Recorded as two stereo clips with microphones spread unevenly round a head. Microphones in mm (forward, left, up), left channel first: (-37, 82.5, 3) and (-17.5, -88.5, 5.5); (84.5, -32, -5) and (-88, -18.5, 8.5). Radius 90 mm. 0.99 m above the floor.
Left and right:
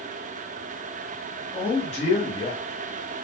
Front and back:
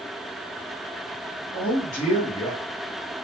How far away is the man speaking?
About 1.6 m.